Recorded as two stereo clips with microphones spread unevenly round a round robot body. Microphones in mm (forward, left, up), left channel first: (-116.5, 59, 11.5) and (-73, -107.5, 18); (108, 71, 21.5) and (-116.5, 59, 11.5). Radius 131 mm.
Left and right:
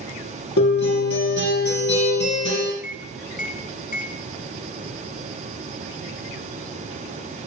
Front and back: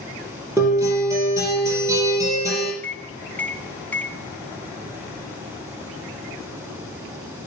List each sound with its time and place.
0.6 s a guitar: 105° left, 4.5 m
2.8 s a microwave: 90° left, 1.0 m